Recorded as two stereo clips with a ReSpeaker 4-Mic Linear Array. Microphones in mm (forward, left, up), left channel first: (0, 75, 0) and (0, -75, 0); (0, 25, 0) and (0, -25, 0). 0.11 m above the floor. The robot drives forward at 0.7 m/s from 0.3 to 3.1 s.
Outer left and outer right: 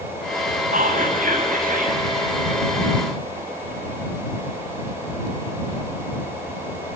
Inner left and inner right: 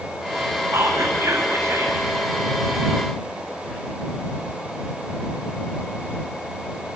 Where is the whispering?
60° right (ahead or behind), 3.5 m; by 2.0 s 70° right (ahead or behind), 3 m.